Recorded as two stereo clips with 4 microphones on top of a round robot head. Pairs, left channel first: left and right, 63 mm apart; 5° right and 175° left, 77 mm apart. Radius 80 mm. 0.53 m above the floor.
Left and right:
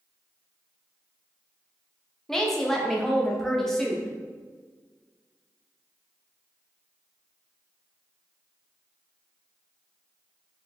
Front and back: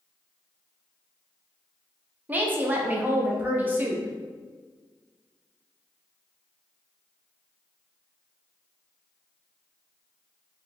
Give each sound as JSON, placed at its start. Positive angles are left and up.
{"t": 2.3, "sound": "a woman speaking", "azimuth_deg": 165, "distance_m": 0.6}